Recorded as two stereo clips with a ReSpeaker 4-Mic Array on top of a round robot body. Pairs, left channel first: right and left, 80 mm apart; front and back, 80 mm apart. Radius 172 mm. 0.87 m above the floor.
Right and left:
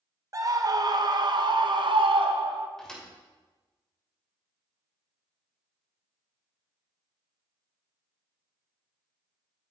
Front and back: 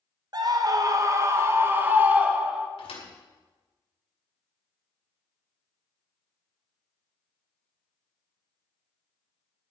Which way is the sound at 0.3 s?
140° left.